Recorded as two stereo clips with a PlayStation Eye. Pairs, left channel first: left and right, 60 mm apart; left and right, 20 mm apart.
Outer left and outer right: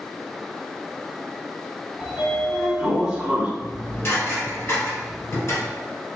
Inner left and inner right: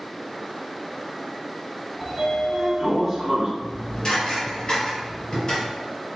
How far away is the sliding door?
About 0.9 m.